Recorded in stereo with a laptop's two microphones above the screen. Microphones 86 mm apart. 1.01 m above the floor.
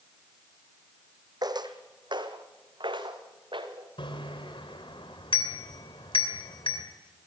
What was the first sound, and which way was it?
Footsteps, 55° right (ahead or behind).